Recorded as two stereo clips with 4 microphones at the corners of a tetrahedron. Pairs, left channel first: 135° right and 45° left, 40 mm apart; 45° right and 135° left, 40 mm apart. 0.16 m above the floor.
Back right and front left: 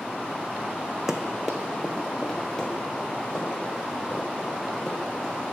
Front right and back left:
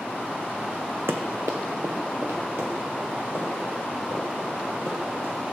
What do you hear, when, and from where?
1.1 s running footsteps: 120° left, 0.6 m; by 5.3 s 150° left, 4 m